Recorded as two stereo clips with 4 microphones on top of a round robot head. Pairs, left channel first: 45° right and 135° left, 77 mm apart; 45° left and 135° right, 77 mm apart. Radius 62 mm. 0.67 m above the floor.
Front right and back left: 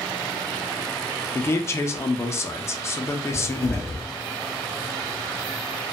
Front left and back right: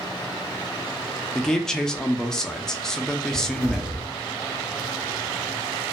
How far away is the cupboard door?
About 1.2 m.